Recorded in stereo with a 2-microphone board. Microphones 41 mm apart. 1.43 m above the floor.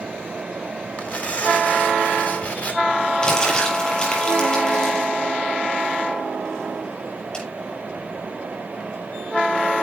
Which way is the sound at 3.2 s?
25° left (ahead or behind).